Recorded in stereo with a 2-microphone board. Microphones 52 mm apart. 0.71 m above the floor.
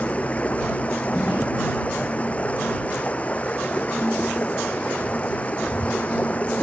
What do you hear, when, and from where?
0.0 s running water: 30° left (ahead or behind)